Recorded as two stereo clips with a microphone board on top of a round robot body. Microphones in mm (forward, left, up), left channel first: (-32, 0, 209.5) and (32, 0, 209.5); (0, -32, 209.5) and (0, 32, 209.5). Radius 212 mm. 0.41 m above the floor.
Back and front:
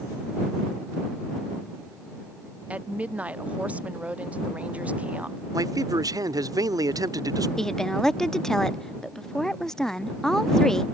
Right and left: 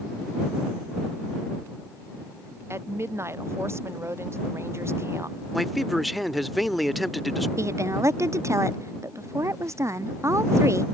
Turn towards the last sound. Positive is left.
turn(degrees=100)